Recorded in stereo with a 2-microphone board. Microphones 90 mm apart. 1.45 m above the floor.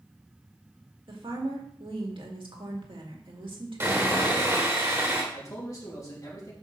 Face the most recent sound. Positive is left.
turn(degrees=40)  # may be behind; listen again after turning